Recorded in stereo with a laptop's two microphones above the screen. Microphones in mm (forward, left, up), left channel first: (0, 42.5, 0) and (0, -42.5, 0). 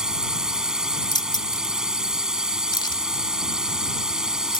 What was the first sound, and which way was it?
A drone, 10° right (ahead or behind).